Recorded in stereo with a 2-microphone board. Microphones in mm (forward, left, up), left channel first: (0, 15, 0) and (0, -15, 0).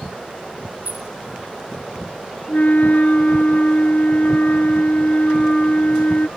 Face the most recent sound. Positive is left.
turn(degrees=60)  # may be behind; listen again after turning